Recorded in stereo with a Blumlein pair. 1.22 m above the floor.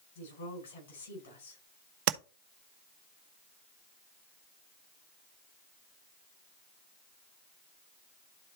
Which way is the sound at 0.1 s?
60° left.